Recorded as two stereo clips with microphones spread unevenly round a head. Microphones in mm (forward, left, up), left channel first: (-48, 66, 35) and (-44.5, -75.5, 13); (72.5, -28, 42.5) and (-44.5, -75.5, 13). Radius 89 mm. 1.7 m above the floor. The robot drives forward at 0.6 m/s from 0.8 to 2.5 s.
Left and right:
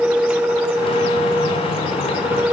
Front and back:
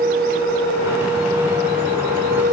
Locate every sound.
Only background noise.